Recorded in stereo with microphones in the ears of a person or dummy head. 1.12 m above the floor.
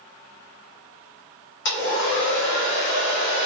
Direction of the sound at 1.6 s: 60° left (ahead or behind).